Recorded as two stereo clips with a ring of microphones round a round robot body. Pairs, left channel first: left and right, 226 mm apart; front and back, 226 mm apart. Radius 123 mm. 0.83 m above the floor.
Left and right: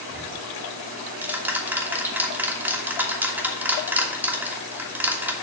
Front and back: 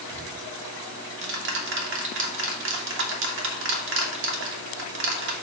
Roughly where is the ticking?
Behind.